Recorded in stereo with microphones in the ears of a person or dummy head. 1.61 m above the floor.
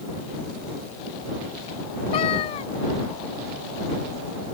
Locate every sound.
2.1 s a cat meowing: 25° left (ahead or behind)